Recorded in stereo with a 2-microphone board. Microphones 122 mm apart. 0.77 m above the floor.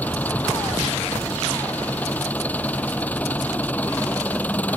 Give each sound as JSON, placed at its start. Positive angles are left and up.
{"t": 0.0, "sound": "an engine running", "side_deg": 15}